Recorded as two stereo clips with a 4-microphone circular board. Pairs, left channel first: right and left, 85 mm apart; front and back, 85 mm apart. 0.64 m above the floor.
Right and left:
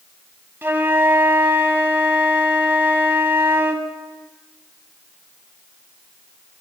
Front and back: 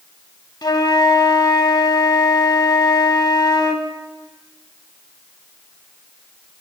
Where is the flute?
30° left, 0.8 m.